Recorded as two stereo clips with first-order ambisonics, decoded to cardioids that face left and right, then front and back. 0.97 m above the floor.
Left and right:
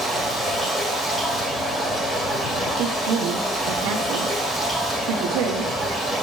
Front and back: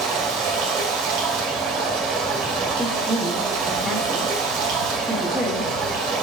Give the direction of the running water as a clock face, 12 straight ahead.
6 o'clock.